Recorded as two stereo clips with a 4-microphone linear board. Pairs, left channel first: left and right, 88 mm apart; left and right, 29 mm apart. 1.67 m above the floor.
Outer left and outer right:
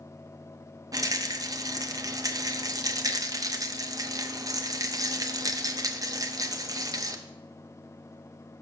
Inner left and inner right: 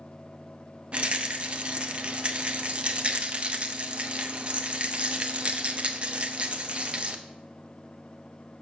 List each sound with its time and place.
0.9 s a rattle: 40° right (ahead or behind), 0.7 m